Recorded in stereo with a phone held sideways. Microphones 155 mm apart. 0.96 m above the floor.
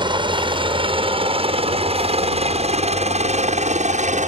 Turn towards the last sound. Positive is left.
turn(degrees=-55)  # may be behind; listen again after turning